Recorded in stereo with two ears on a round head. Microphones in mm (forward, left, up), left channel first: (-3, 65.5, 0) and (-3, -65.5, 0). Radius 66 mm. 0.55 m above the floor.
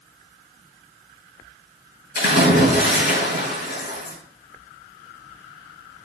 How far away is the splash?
About 5 m.